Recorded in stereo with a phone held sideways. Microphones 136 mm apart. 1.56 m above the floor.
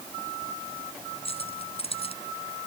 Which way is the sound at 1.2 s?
40° left (ahead or behind).